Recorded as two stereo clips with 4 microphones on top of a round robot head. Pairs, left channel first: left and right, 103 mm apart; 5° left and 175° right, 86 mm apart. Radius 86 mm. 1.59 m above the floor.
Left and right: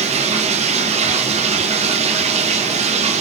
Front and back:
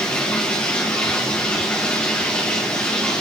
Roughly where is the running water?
Right.